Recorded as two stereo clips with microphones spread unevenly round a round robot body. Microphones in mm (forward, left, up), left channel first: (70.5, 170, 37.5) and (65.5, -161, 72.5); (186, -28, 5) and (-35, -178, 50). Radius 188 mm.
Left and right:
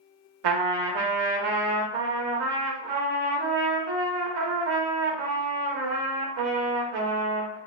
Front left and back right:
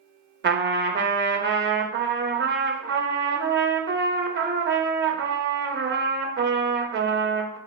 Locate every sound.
0.4 s a trumpet: 90° right, 0.7 m